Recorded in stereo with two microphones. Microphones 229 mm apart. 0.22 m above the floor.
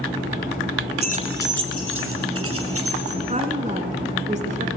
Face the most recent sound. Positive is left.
turn(degrees=-30)  # may be behind; listen again after turning